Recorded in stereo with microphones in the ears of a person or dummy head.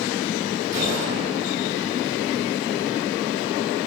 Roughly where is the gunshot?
Right.